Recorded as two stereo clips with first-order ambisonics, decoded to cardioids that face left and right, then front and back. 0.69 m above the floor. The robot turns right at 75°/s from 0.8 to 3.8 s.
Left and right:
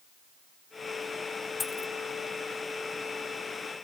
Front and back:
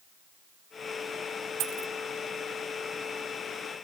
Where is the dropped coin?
165° left; by 1.9 s 170° right.